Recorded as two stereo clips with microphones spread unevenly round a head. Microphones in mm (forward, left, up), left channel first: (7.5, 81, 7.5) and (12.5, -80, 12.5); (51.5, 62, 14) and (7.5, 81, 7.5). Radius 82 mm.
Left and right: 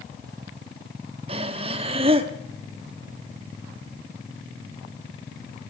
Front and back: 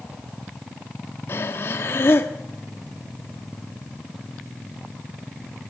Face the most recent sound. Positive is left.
turn(degrees=-40)